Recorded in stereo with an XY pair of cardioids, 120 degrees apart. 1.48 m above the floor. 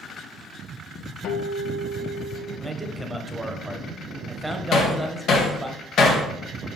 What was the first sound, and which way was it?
A guitar, 70° left.